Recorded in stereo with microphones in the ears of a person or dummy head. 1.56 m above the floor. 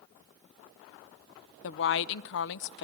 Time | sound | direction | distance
1.6 | a woman speaking | 60° left (ahead or behind) | 0.6 m